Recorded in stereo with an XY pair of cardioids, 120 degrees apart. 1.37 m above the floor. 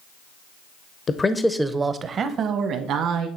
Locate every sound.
1.1 s a man speaking: 35° left, 0.7 m; by 3.3 s 70° right, 1.6 m